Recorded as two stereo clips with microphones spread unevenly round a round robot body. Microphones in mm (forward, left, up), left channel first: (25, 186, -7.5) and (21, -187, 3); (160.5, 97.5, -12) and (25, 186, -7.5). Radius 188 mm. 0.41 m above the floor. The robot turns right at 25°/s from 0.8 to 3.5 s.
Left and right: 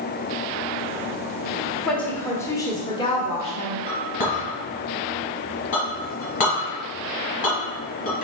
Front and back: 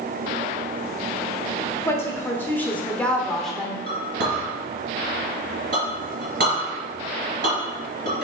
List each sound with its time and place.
1.9 s a woman speaking: 5° left, 0.8 m; by 3.8 s 50° left, 0.8 m
3.9 s a clink: 155° left, 2 m